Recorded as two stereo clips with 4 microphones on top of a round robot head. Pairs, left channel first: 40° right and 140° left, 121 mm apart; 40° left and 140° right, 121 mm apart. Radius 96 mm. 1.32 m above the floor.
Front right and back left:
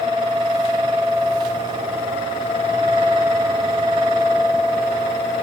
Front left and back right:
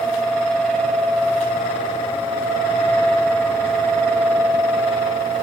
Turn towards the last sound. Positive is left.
No sound to turn to.